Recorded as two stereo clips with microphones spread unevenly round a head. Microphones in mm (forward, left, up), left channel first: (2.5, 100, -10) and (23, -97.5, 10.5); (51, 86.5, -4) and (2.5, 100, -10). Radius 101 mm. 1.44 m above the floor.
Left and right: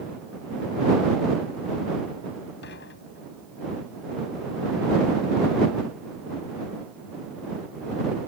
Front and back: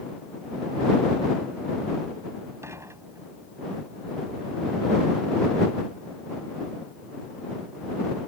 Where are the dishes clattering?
135° left.